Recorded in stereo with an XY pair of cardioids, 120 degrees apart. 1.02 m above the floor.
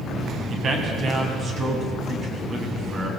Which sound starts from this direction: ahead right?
A man speaking, at 0.5 s.